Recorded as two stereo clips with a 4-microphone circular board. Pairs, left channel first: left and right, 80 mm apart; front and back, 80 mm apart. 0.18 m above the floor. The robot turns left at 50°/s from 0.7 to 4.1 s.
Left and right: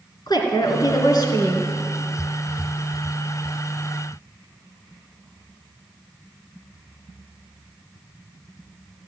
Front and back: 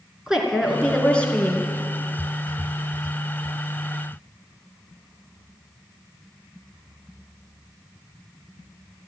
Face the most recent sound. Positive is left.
turn(degrees=-70)